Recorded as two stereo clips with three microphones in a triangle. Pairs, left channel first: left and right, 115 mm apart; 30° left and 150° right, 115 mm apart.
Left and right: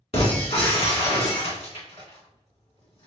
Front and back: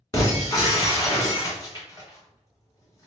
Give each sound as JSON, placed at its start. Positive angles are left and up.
{"t": 0.1, "sound": "breaking glass", "azimuth_deg": 85, "distance_m": 1.7}